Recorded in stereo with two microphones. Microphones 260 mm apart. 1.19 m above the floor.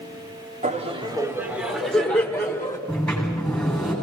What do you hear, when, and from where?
0.6 s laughter: 30° right (ahead or behind), 2.5 m; by 2.8 s 15° left (ahead or behind), 4 m
2.9 s a sliding door: 5° left (ahead or behind), 9.5 m